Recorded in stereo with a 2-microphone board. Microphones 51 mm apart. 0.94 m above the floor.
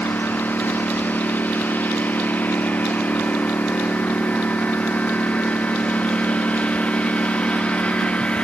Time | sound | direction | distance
0.0 | a lawn mower | 40° left (ahead or behind) | ?